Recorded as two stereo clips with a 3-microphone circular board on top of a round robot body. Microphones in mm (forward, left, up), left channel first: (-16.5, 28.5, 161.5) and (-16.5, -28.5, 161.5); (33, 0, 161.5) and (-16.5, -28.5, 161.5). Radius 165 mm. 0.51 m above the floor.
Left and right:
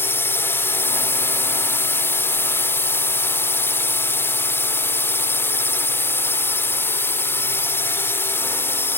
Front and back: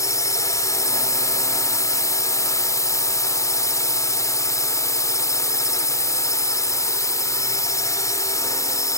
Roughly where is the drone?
Ahead left.